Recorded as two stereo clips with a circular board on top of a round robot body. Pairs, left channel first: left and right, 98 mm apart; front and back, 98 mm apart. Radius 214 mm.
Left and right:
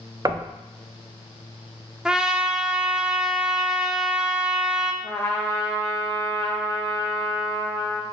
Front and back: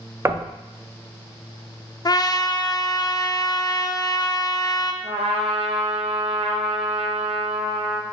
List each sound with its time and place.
0.2 s knocking: 125° right, 0.6 m
2.0 s a trumpet: 10° right, 0.6 m
5.0 s a trumpet: 160° left, 0.5 m